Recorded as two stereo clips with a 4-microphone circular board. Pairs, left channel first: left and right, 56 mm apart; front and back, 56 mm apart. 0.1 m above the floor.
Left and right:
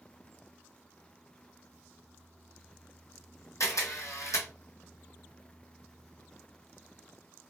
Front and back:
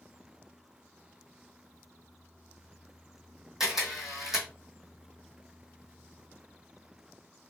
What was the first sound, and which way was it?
A camera shutter, 100° left.